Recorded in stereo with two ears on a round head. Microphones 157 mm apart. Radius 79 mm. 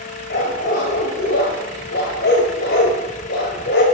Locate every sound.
0.3 s a dog barking: 65° left (ahead or behind), 3 m